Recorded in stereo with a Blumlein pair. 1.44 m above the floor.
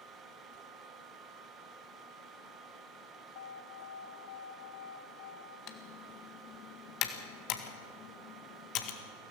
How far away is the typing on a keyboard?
About 1.8 m.